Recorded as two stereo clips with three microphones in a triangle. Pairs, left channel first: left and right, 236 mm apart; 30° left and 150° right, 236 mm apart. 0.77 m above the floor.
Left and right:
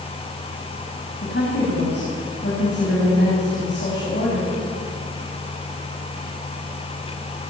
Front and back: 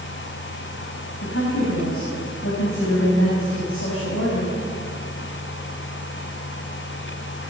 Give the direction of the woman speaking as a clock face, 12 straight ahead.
10 o'clock.